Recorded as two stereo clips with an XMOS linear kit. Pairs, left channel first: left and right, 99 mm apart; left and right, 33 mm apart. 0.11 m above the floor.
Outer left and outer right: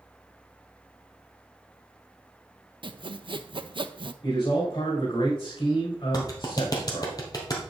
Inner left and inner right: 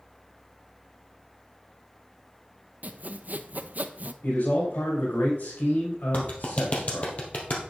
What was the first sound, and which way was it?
Sawing, 55° right (ahead or behind).